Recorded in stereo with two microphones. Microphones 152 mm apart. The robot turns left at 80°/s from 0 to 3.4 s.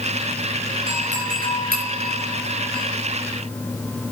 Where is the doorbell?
35° right (ahead or behind), 6.5 m; by 2.8 s 10° left (ahead or behind), 6.5 m.